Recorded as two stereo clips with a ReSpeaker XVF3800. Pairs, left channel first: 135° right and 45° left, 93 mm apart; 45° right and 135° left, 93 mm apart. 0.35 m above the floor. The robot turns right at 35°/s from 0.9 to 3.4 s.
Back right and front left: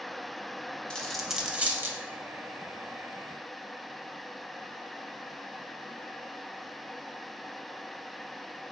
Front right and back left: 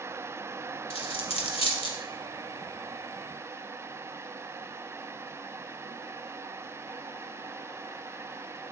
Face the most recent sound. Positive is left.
turn(degrees=30)